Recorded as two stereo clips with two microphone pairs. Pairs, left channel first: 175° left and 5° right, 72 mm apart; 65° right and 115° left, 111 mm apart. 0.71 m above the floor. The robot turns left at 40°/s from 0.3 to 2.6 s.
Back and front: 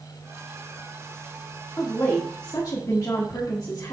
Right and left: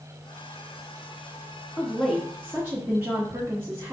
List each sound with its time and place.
1.8 s a woman speaking: 140° right, 1.2 m; by 3.9 s 175° right, 1.2 m